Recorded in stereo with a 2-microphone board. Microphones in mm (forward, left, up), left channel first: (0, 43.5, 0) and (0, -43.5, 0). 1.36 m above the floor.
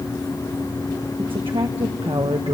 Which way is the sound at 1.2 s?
85° right.